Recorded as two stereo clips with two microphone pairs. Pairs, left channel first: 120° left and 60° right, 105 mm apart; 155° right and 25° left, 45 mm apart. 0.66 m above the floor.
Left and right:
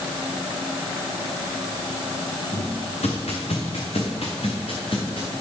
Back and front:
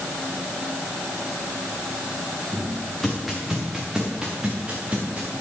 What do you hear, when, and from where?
2.5 s footsteps: 130° left, 4 m; by 5.3 s 85° left, 4.5 m